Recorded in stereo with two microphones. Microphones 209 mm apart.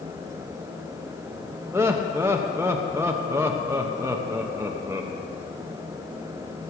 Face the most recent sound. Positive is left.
turn(degrees=-10)  # may be behind; listen again after turning